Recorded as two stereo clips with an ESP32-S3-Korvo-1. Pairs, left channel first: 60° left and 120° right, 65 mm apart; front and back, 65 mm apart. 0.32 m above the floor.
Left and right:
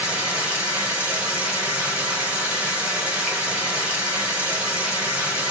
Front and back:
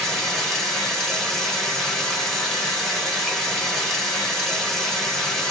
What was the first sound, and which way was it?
Running water, 75° right.